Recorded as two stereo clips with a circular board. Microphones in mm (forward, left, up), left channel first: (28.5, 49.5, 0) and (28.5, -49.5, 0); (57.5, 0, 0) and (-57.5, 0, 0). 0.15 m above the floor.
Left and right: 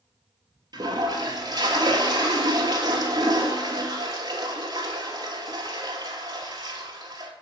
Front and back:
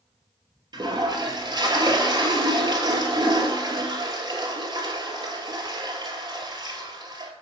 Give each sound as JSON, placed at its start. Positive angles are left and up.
{"t": 0.7, "sound": "a toilet flushing", "azimuth_deg": -130, "distance_m": 1.1}